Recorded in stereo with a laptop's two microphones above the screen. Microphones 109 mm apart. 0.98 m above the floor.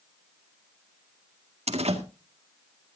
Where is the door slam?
80° right, 1.8 m.